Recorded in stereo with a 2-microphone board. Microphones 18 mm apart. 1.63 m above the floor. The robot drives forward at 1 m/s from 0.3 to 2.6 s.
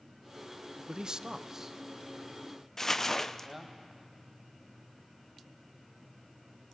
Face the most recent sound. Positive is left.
turn(degrees=25)  # may be behind; listen again after turning